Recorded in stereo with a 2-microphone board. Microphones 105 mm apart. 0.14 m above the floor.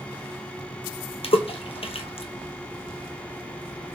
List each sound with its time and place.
1.2 s a splash: 70° left (ahead or behind), 0.8 m